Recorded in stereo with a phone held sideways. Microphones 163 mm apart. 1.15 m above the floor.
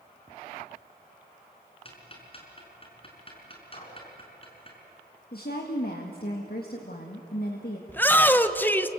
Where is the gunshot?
45° left (ahead or behind), 5 m.